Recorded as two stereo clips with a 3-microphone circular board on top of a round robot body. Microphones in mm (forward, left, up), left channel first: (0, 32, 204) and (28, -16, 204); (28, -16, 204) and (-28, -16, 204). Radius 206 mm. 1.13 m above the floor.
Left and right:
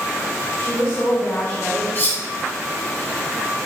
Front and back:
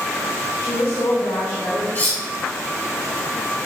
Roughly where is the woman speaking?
Ahead left.